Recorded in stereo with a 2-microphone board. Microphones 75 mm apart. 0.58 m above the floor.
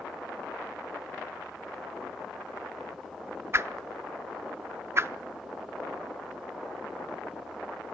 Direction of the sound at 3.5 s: 35° right (ahead or behind).